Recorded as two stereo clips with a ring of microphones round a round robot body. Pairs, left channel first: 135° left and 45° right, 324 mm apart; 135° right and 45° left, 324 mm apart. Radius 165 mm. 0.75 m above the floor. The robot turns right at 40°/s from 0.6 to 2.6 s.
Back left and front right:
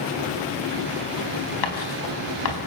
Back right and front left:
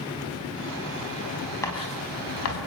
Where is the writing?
145° left, 4.5 m; by 2.6 s straight behind, 4.5 m.